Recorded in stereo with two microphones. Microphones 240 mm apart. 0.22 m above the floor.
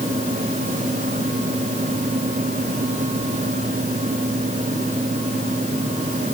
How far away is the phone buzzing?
No phone buzzing in this recording.